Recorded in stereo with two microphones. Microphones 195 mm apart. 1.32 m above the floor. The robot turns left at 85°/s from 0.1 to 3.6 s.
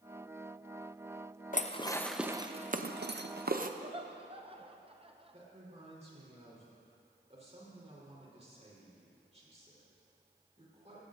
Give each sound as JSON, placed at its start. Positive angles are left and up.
{"t": 1.5, "sound": "dishes clattering", "side_deg": 45, "distance_m": 0.7}
{"t": 3.8, "sound": "laughter", "side_deg": -30, "distance_m": 0.8}
{"t": 5.3, "sound": "a man speaking", "side_deg": -35, "distance_m": 4.0}